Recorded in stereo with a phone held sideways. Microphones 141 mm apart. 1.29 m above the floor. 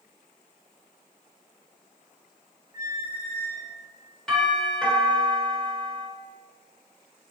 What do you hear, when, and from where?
2.7 s a squeak: 20° right (ahead or behind), 1.0 m
4.3 s a doorbell: 5° left (ahead or behind), 1.4 m